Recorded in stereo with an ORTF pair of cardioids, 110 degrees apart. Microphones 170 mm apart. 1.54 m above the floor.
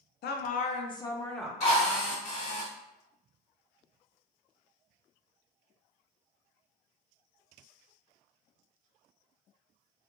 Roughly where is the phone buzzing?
I don't hear a phone buzzing.